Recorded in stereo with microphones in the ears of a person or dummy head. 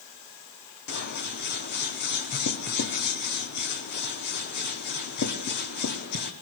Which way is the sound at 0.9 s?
55° left (ahead or behind).